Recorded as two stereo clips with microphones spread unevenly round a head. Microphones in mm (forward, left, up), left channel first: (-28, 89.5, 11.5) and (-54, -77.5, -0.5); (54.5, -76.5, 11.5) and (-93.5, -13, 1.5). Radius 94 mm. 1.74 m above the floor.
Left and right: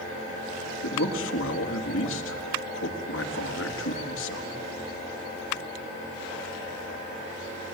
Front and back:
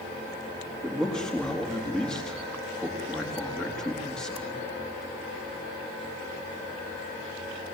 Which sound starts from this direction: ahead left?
A man speaking, at 0.8 s.